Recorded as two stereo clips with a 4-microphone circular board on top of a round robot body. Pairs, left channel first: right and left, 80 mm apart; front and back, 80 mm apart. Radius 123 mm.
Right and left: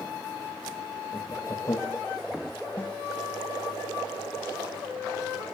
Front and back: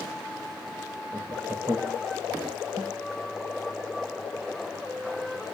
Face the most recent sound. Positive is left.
turn(degrees=-160)